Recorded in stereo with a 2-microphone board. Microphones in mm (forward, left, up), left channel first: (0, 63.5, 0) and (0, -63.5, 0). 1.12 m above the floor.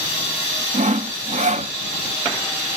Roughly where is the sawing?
Right.